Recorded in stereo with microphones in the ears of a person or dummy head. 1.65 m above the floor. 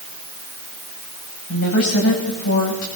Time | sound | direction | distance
1.5 | a woman speaking | 80° left | 10 m